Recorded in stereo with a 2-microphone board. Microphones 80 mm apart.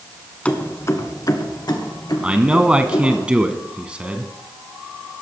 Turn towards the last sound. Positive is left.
turn(degrees=-15)  # may be behind; listen again after turning